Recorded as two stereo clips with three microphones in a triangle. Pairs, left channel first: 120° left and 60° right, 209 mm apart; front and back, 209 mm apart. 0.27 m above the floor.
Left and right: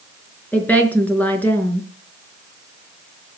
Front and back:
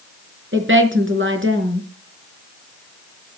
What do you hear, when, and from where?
0.5 s a woman speaking: 160° right, 4 m